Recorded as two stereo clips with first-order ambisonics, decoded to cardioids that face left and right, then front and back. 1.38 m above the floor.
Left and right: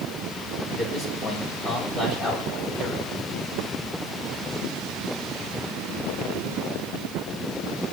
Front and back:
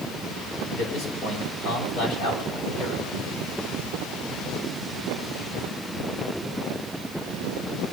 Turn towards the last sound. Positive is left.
turn(degrees=35)